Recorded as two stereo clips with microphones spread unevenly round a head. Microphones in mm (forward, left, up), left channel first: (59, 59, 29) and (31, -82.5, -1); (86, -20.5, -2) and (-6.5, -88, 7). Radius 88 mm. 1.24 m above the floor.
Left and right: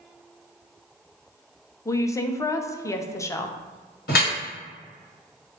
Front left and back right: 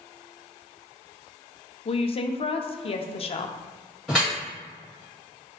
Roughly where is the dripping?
Behind left.